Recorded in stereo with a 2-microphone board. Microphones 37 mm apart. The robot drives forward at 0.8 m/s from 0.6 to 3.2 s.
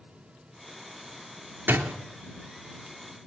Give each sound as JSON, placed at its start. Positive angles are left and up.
{"t": 1.7, "sound": "a door slam", "side_deg": -60, "distance_m": 3.5}